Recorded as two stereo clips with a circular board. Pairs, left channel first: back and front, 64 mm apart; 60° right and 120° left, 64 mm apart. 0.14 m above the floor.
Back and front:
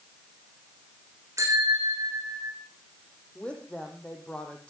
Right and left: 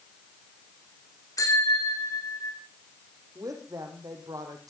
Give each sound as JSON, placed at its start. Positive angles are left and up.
{"t": 1.4, "sound": "a bicycle bell", "azimuth_deg": -35, "distance_m": 6.0}
{"t": 3.4, "sound": "a woman speaking", "azimuth_deg": 105, "distance_m": 5.0}